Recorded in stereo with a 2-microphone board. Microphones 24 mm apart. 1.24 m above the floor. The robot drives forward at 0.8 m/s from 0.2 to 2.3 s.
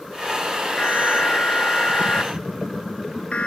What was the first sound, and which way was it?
An alarm, 65° left (ahead or behind).